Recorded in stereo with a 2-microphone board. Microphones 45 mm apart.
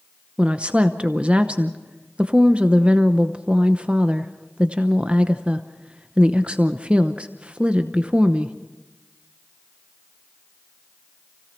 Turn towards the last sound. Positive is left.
turn(degrees=-25)  # may be behind; listen again after turning